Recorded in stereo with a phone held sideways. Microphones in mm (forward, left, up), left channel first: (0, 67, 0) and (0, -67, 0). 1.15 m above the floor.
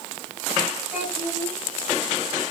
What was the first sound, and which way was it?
A child speaking, 5° left (ahead or behind).